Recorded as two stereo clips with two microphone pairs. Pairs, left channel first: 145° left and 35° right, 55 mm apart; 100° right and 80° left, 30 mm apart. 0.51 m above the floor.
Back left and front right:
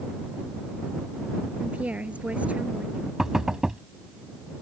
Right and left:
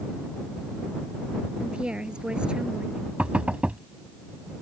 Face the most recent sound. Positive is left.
turn(degrees=40)